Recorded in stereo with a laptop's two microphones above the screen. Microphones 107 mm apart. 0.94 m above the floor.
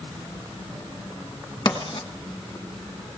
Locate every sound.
1.6 s writing: 45° left (ahead or behind), 1.6 m